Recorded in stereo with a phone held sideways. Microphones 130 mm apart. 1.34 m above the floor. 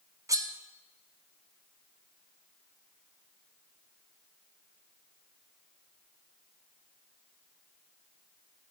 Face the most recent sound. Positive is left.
turn(degrees=-25)  # may be behind; listen again after turning